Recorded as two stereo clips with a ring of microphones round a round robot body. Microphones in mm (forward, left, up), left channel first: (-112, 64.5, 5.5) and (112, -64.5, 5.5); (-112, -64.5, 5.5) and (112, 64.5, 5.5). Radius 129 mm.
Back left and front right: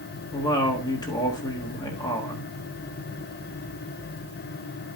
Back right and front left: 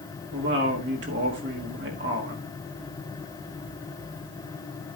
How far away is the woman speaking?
About 1.5 m.